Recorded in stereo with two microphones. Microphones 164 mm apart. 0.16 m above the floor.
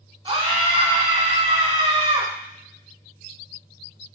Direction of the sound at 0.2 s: 30° right (ahead or behind).